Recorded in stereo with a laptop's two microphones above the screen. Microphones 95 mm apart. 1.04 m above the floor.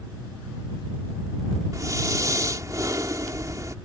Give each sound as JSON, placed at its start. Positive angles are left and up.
{"t": 1.7, "sound": "breathing", "side_deg": -35}